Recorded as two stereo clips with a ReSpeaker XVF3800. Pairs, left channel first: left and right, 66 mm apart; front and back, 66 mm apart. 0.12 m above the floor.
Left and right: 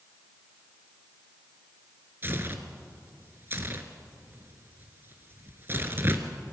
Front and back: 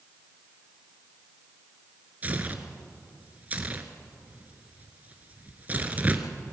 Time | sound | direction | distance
2.2 | tearing paper | 125° right | 1.6 m